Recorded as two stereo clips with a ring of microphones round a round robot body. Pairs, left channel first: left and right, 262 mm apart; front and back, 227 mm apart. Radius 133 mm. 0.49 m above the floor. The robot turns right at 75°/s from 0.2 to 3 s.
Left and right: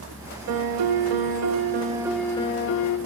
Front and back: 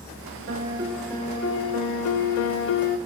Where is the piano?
130° right, 0.6 m; by 3.0 s 60° left, 0.6 m.